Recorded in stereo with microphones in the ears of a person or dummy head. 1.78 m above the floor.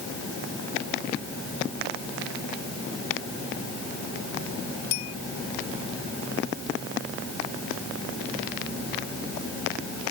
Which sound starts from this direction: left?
A bell, at 4.9 s.